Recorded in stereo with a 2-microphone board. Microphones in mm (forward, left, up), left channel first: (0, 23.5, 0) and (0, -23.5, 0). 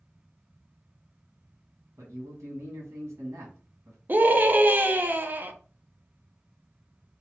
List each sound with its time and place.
2.0 s a man speaking: 85° right, 1.6 m
4.1 s a scream: 40° right (ahead or behind), 0.5 m